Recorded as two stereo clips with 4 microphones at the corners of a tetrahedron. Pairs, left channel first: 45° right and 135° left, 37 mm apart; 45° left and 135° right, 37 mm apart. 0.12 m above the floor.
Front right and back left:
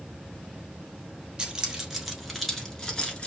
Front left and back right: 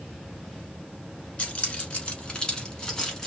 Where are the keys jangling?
75° left, 1.3 m; by 3.3 s 20° right, 1.1 m.